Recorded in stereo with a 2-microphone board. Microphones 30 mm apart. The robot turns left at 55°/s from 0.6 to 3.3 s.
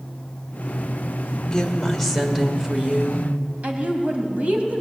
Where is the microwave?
No microwave in this recording.